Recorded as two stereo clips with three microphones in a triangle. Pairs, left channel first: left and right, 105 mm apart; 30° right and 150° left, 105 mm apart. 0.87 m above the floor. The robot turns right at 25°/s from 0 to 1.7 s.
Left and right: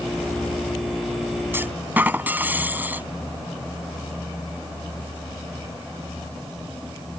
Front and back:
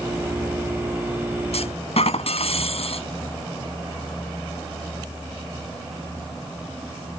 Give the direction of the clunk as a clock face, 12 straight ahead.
1 o'clock.